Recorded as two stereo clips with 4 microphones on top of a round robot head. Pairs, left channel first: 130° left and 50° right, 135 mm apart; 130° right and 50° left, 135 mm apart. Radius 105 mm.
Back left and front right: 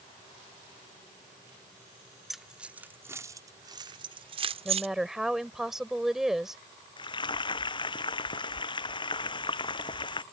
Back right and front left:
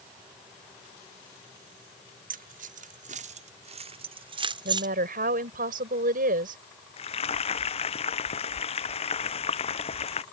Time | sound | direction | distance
2.3 | keys jangling | 40° left | ?
4.7 | a woman speaking | 35° left | ?
7.0 | frying | 175° right | ?